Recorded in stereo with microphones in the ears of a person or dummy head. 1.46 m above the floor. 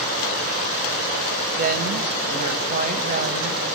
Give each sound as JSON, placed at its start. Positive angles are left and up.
{"t": 1.6, "sound": "a woman speaking", "side_deg": -40, "distance_m": 1.9}